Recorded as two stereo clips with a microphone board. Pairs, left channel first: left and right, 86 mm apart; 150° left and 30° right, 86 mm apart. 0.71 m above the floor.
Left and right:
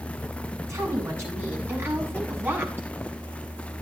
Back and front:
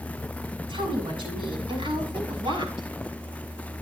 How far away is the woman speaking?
About 6.5 m.